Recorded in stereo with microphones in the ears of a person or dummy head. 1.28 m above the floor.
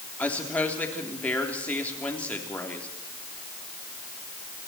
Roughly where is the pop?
No pop in this recording.